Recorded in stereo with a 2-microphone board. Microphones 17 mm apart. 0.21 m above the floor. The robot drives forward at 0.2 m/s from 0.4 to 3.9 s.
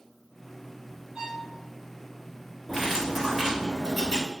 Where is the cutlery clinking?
15° right (ahead or behind), 2.0 m.